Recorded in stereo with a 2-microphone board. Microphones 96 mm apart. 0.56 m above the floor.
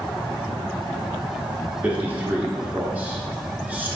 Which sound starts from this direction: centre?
A man speaking, at 1.8 s.